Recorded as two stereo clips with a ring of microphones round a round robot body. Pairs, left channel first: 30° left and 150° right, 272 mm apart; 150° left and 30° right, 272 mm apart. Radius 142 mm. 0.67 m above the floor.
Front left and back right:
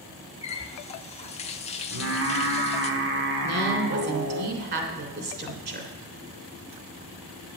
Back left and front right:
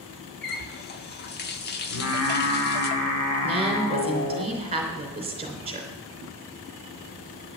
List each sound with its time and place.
0.4 s a running tap: 95° left, 1.1 m
1.9 s singing: 175° left, 2.5 m
3.4 s a woman speaking: 100° right, 3 m